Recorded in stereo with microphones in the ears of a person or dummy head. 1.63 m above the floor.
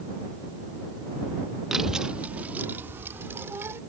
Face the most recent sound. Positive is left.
turn(degrees=-15)  # may be behind; listen again after turning